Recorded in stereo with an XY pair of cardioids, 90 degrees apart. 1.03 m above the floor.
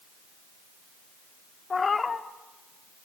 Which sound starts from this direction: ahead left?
A cat meowing, at 1.7 s.